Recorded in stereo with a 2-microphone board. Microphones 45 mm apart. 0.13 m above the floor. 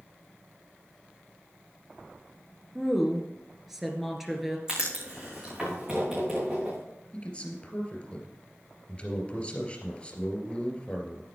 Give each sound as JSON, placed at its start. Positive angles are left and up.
{"t": 2.8, "sound": "a woman speaking", "side_deg": -5, "distance_m": 2.0}
{"t": 4.7, "sound": "writing", "side_deg": -20, "distance_m": 6.0}
{"t": 7.1, "sound": "a man speaking", "side_deg": 25, "distance_m": 2.5}